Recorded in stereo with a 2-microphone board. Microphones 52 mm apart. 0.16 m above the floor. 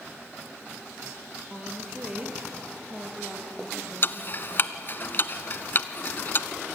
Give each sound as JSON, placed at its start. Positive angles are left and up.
{"t": 1.5, "sound": "a woman speaking", "side_deg": -20, "distance_m": 4.0}
{"t": 4.0, "sound": "ticking", "side_deg": 40, "distance_m": 0.8}